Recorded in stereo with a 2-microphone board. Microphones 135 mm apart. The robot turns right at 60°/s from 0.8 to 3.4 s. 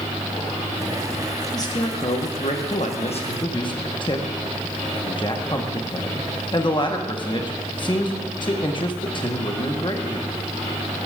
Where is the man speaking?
25° left (ahead or behind), 1.1 m; by 10.3 s 35° left (ahead or behind), 1.1 m.